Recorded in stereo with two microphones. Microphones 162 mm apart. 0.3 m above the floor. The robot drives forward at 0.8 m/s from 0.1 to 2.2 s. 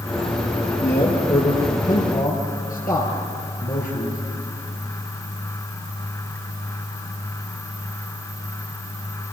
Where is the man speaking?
65° left (ahead or behind), 5 m; by 4.2 s 55° left (ahead or behind), 5.5 m.